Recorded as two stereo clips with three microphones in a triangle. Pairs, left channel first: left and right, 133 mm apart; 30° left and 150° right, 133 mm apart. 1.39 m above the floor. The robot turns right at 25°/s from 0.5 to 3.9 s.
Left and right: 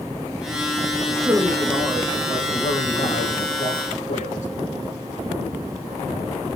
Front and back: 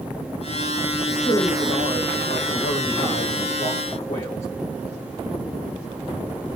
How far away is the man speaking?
About 1.8 m.